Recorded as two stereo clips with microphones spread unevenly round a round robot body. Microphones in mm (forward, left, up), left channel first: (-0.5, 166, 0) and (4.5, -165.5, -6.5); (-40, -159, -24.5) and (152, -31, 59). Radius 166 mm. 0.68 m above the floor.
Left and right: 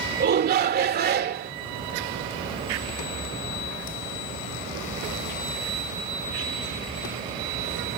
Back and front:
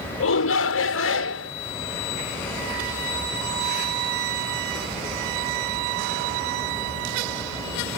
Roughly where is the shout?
Behind right.